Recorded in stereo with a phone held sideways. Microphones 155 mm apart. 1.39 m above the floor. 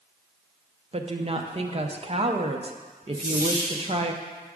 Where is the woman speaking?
35° right (ahead or behind), 0.6 m.